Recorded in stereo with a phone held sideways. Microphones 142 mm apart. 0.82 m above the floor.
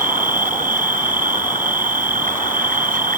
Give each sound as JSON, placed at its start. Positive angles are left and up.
{"t": 0.0, "sound": "an insect", "side_deg": -80}